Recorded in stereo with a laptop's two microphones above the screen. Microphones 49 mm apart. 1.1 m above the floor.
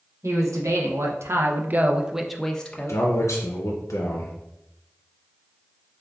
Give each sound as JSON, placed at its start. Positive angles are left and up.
{"t": 0.2, "sound": "a man speaking", "side_deg": -85, "distance_m": 1.1}
{"t": 2.9, "sound": "a man speaking", "side_deg": 75, "distance_m": 0.5}